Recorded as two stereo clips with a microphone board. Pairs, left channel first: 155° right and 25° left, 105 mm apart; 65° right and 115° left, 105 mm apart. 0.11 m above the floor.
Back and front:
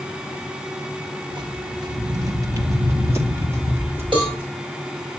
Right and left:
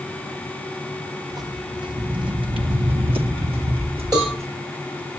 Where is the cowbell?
65° left, 9 m.